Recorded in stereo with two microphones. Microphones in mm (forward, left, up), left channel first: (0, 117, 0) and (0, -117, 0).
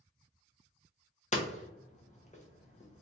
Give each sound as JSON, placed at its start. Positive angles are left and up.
{"t": 1.3, "sound": "hammering", "side_deg": 30, "distance_m": 0.7}